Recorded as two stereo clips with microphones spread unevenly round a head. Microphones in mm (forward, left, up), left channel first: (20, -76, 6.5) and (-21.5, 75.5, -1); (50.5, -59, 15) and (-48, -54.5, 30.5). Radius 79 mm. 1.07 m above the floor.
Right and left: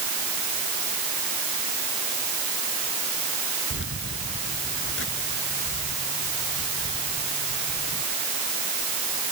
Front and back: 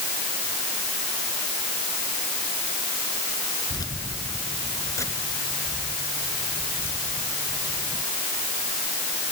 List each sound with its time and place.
3.7 s keys jangling: 55° right; by 8.0 s 75° right